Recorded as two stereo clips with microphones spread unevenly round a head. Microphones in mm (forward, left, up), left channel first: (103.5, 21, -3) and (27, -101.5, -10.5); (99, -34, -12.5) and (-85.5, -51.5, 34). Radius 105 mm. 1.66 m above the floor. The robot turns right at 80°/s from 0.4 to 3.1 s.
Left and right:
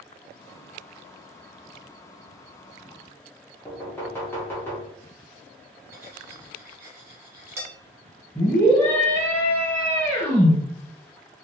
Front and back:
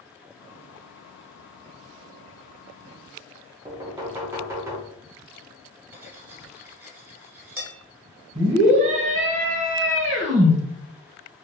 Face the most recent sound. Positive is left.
turn(degrees=135)